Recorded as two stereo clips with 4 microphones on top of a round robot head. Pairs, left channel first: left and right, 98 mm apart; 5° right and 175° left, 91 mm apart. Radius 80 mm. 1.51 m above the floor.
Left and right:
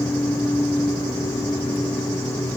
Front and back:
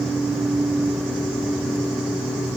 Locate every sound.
Only background noise.